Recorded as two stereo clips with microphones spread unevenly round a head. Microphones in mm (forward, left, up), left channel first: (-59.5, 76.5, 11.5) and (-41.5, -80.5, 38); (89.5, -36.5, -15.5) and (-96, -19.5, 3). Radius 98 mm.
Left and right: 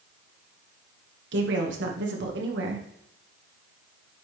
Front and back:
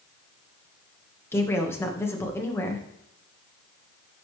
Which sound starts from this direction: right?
A woman speaking, at 1.3 s.